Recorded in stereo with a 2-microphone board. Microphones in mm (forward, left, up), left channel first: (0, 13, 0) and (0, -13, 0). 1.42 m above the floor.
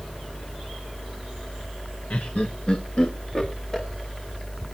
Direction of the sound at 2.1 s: 65° left (ahead or behind).